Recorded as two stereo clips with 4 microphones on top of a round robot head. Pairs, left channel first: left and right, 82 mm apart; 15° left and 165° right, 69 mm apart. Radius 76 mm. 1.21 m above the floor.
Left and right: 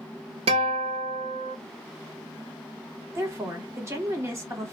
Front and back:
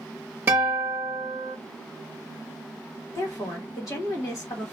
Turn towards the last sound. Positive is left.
turn(degrees=-35)